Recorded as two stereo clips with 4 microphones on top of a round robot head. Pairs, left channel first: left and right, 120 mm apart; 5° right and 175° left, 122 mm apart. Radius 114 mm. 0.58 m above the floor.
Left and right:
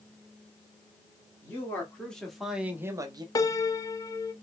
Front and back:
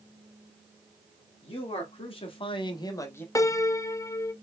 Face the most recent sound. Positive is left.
turn(degrees=45)